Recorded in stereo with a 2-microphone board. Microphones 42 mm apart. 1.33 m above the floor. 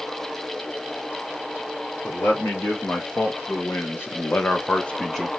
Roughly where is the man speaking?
Left.